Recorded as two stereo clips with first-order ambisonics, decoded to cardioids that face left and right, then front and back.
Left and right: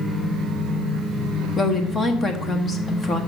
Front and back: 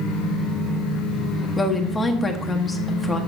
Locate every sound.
1.6 s a woman speaking: 50° left, 0.9 m